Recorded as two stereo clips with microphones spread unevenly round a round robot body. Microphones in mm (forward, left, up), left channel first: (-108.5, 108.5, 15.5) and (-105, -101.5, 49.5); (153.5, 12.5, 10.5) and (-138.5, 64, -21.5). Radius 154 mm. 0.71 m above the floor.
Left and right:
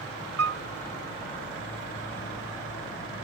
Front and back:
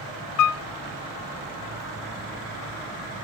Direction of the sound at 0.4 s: 45° right.